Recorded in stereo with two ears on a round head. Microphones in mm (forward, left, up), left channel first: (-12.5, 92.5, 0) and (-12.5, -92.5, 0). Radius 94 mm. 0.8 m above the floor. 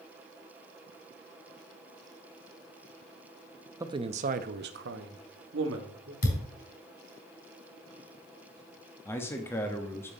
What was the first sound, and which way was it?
A man speaking, 15° right (ahead or behind).